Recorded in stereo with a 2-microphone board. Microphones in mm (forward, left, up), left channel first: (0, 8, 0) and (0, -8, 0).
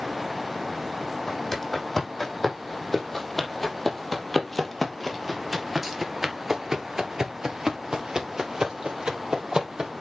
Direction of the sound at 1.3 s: 20° left (ahead or behind).